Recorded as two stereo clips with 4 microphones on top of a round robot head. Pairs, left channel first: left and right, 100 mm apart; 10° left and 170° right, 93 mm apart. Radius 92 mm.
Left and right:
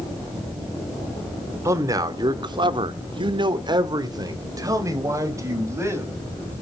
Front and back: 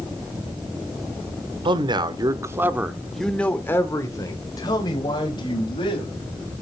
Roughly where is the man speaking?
Behind right.